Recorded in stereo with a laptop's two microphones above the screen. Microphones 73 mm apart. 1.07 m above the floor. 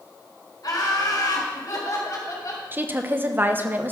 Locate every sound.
0.6 s laughter: 60° left (ahead or behind), 3.5 m; by 2.6 s 55° left (ahead or behind), 4.5 m
2.7 s a woman speaking: 25° right (ahead or behind), 0.9 m